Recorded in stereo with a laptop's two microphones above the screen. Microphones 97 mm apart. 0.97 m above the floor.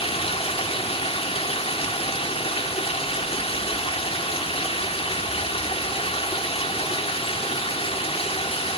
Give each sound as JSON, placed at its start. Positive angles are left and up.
{"t": 0.0, "sound": "running water", "side_deg": 75, "distance_m": 2.0}